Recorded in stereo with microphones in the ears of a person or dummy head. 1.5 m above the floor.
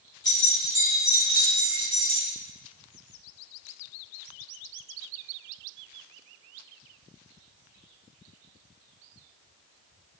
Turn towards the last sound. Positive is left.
turn(degrees=-50)  # may be behind; listen again after turning